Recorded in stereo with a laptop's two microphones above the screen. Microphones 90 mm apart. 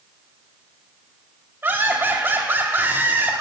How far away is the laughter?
About 2.5 m.